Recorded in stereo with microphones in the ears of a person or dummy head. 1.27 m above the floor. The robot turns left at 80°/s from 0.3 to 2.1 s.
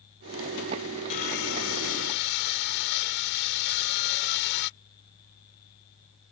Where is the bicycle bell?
I don't hear a bicycle bell.